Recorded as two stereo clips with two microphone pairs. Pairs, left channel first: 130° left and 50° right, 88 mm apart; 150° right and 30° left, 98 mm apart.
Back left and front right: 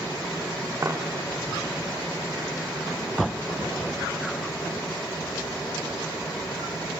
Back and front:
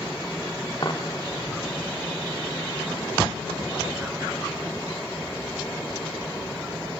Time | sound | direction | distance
0.8 | a dropped coin | 110° right | 2.5 m